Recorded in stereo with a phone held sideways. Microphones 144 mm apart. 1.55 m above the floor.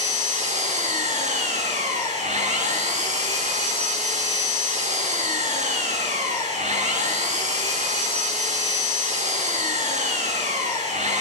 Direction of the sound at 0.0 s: 55° right (ahead or behind).